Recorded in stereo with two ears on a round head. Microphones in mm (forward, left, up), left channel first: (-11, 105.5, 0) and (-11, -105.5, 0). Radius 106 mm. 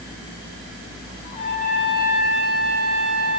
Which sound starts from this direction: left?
A trumpet, at 1.2 s.